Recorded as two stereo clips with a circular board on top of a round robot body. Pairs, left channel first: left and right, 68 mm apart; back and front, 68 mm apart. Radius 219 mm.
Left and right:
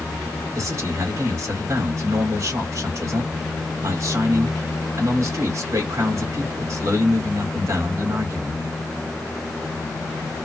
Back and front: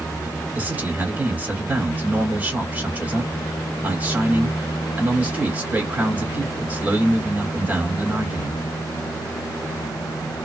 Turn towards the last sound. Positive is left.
turn(degrees=-60)